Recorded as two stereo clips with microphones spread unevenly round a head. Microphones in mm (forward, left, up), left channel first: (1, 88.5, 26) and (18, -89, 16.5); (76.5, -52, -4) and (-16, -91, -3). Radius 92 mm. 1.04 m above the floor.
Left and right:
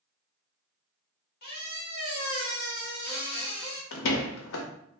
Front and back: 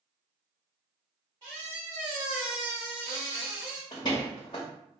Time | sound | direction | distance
1.4 | a squeak | 130° left | 1.2 m
3.9 | a door slam | 90° left | 0.6 m